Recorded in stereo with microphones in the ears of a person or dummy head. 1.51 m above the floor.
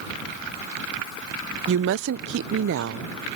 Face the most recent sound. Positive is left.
turn(degrees=-65)  # may be behind; listen again after turning